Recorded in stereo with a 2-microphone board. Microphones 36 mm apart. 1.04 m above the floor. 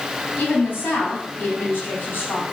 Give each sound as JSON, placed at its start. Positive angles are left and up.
{"t": 0.4, "sound": "a woman speaking", "side_deg": 65, "distance_m": 3.0}